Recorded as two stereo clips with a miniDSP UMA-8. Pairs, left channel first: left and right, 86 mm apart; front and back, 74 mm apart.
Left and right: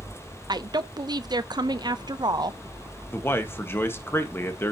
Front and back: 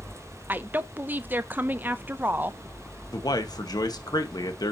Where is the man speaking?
30° left, 1.3 m.